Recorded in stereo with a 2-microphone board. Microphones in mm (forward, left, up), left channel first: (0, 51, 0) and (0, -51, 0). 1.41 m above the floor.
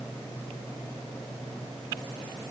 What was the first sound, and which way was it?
Only background noise.